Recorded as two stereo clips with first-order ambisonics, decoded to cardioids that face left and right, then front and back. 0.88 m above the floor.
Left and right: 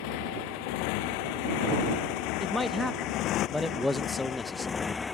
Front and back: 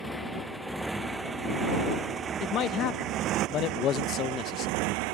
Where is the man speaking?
15° left.